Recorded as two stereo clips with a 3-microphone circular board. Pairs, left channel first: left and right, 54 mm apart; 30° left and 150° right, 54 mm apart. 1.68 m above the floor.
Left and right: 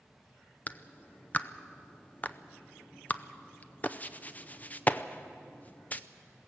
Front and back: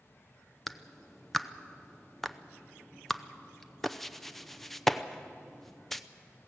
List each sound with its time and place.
0.7 s a clap: 110° left, 0.6 m